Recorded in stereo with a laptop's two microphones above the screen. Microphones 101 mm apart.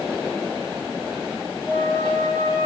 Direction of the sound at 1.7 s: 15° right (ahead or behind).